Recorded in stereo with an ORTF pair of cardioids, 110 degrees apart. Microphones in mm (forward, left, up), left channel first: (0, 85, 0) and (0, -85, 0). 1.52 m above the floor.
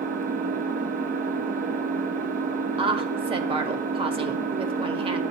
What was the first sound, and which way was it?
An engine running, 55° right.